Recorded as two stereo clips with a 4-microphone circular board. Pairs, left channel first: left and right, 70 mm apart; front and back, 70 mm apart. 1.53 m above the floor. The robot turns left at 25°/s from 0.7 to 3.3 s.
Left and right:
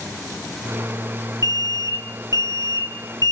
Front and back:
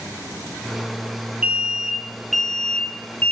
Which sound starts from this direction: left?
An alarm, at 1.4 s.